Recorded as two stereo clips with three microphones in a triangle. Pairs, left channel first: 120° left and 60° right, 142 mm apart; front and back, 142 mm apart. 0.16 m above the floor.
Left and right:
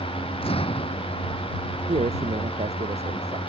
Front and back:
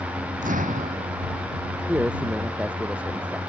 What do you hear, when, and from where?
0.4 s an explosion: 165° left
1.9 s a man speaking: 100° right